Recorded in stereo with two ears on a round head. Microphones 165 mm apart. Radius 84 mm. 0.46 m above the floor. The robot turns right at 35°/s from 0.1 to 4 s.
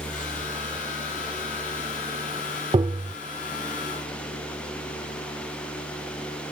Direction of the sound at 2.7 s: 25° right (ahead or behind).